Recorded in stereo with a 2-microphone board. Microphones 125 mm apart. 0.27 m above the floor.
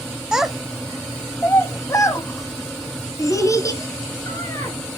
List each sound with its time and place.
0.3 s a child speaking: 5° right (ahead or behind), 0.6 m; by 4.8 s 25° left (ahead or behind), 2.5 m